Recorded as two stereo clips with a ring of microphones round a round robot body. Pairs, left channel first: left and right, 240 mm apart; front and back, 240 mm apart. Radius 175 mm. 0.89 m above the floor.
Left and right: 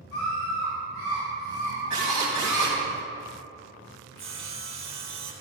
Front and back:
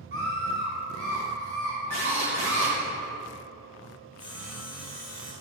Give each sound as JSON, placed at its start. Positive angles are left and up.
{"t": 0.1, "sound": "a scream", "azimuth_deg": 145, "distance_m": 3.5}
{"t": 1.9, "sound": "a drill", "azimuth_deg": -145, "distance_m": 2.5}
{"t": 4.2, "sound": "sawing", "azimuth_deg": -105, "distance_m": 1.6}